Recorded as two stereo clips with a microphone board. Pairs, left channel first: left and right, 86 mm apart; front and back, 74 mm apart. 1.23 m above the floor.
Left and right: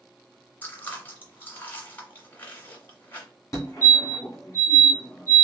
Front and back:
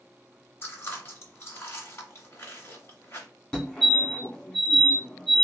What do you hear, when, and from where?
0.6 s chewing: 35° left, 1.5 m
3.5 s a fire alarm: 70° left, 1.4 m